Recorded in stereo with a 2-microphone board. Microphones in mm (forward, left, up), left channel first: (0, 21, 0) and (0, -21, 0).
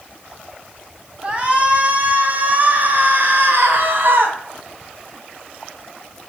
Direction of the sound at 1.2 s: 25° right (ahead or behind).